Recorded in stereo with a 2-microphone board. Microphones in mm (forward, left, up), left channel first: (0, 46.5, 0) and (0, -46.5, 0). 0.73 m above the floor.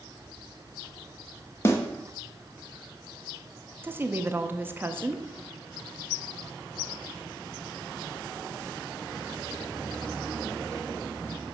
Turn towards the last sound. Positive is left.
turn(degrees=-25)  # may be behind; listen again after turning